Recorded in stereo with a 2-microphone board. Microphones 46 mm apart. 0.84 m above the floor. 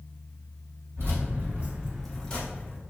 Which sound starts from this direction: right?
Keys jangling, at 1.0 s.